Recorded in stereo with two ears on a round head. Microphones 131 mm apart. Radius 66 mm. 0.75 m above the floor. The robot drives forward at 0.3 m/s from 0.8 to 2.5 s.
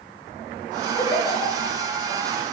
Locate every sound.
1.0 s a giggle: 25° left (ahead or behind), 0.5 m; by 1.8 s 20° left (ahead or behind), 0.7 m